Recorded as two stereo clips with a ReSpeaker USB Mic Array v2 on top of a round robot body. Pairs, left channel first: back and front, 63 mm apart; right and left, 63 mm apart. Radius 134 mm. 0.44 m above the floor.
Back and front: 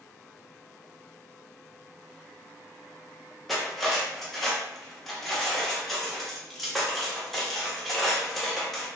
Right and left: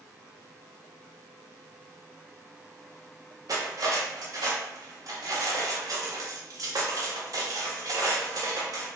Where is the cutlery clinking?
90° left, 0.9 m.